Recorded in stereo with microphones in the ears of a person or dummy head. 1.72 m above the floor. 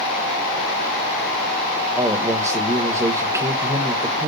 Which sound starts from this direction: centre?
A man speaking, at 1.9 s.